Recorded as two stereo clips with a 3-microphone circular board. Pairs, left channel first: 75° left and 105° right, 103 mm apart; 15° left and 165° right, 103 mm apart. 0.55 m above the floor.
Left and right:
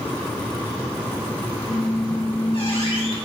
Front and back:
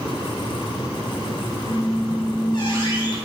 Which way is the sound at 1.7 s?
55° left.